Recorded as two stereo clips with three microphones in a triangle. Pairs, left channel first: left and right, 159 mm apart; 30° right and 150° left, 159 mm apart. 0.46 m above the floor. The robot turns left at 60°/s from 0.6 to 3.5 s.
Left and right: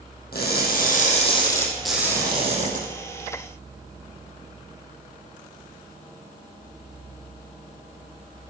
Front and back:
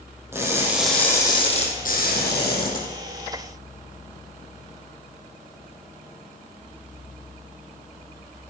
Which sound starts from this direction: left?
Crushing, at 0.3 s.